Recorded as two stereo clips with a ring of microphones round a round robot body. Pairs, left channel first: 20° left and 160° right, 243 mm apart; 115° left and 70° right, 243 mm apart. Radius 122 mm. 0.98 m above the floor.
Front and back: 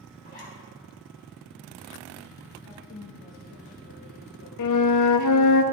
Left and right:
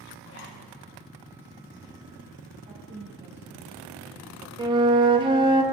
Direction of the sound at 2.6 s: 5° right.